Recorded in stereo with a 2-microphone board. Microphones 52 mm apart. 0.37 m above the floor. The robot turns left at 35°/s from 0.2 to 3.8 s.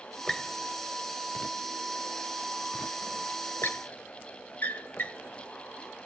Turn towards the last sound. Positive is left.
turn(degrees=40)  # may be behind; listen again after turning